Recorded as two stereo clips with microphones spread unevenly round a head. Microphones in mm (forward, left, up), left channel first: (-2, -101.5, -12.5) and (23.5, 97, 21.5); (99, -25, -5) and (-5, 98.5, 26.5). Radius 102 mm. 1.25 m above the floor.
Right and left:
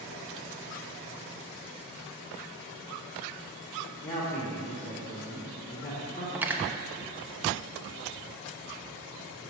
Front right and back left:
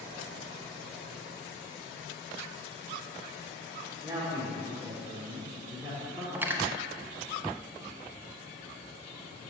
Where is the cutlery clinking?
120° left, 0.5 m.